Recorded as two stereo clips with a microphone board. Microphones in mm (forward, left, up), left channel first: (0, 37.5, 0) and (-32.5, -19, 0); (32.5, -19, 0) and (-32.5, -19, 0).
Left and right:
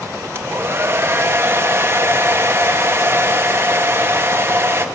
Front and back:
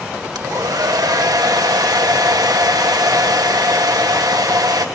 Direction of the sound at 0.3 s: 170° right.